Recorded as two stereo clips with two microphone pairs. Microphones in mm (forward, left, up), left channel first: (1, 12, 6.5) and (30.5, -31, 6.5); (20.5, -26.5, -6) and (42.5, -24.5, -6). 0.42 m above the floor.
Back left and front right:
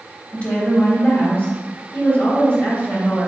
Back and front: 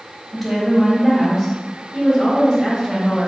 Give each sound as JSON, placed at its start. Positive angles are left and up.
{"t": 0.3, "sound": "a woman speaking", "azimuth_deg": 90, "distance_m": 1.6}